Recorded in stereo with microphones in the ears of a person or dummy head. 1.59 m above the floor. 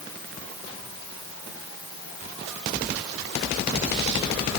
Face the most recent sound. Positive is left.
No sound to turn to.